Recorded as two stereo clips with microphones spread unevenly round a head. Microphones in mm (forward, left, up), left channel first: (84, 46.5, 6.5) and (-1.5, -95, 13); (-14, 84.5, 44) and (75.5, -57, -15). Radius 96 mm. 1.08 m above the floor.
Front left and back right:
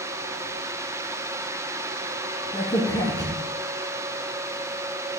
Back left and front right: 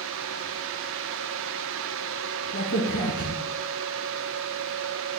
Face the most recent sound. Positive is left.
turn(degrees=130)